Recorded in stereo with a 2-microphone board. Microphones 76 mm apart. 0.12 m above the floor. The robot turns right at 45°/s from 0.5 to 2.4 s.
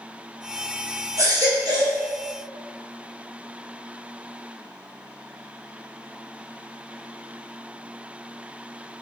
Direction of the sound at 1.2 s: 130° right.